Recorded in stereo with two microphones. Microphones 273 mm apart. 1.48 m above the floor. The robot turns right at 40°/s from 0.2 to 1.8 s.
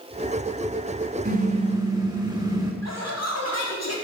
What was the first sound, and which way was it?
A car horn, 35° right (ahead or behind).